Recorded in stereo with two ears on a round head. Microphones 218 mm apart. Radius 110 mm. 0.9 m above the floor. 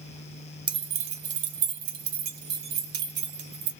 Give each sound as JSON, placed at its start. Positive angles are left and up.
{"t": 0.7, "sound": "keys jangling", "side_deg": -20, "distance_m": 0.7}